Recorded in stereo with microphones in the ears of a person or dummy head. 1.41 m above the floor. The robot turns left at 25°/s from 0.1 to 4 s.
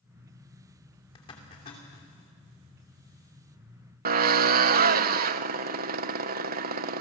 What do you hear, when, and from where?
1.1 s a zipper: 25° left (ahead or behind), 3 m; by 2.1 s 45° left (ahead or behind), 3 m
4.0 s a drill: 50° right (ahead or behind), 0.6 m